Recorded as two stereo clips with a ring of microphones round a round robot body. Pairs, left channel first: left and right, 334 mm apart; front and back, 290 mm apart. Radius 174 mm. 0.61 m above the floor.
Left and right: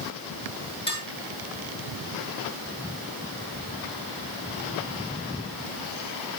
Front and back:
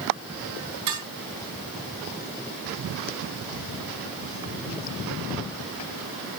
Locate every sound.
0.9 s dishes clattering: 165° left, 7.5 m